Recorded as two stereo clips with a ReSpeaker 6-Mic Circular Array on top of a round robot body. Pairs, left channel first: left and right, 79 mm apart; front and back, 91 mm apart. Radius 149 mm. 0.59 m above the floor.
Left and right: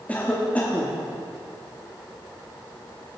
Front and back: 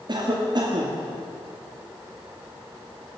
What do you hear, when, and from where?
0.1 s a cough: 160° left, 1.9 m